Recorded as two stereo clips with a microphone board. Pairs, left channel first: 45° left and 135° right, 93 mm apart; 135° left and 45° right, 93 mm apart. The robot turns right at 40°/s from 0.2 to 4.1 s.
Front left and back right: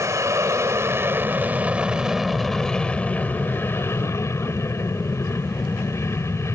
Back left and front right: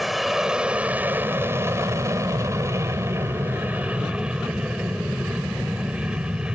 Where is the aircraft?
130° right; by 6.6 s 25° left.